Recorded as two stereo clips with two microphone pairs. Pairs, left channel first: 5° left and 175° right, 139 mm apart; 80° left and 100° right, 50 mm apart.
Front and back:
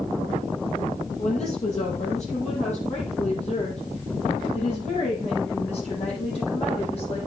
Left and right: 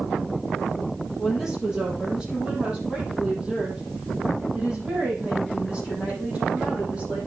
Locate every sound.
1.2 s a woman speaking: 20° right, 6 m; by 7.2 s 40° right, 9.5 m